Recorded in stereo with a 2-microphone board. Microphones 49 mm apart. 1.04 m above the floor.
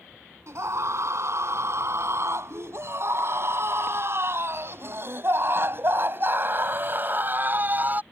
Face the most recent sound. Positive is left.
turn(degrees=-35)  # may be behind; listen again after turning